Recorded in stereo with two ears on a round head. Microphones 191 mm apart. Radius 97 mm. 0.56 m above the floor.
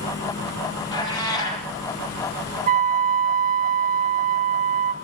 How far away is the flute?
About 1.2 m.